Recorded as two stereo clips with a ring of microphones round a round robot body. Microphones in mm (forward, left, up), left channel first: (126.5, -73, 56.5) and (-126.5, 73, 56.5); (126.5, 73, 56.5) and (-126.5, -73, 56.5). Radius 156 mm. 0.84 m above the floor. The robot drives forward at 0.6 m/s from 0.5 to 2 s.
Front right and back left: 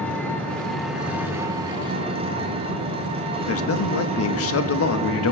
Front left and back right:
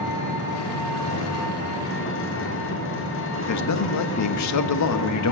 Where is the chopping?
I don't hear chopping.